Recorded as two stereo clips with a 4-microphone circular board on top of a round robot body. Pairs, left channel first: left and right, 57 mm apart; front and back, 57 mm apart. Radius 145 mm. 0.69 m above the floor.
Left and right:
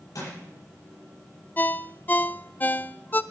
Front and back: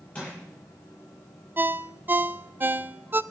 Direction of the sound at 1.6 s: 135° left.